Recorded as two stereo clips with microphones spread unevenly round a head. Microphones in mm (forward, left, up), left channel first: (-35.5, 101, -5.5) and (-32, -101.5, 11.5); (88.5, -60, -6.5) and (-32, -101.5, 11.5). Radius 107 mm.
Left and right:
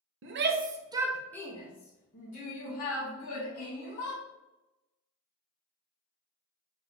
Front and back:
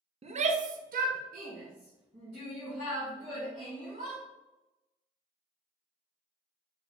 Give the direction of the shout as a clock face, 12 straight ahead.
4 o'clock.